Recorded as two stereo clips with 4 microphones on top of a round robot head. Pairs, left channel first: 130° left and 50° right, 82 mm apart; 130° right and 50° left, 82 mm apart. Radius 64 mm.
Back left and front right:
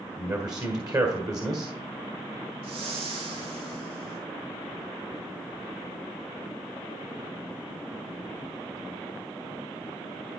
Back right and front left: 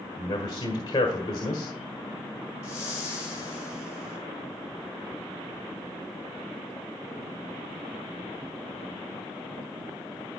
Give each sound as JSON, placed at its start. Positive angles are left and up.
{"t": 0.2, "sound": "a man speaking", "azimuth_deg": -90, "distance_m": 1.7}
{"t": 2.6, "sound": "a whoosh", "azimuth_deg": -70, "distance_m": 4.5}